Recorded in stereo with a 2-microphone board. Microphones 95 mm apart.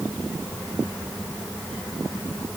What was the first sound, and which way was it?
Only background noise.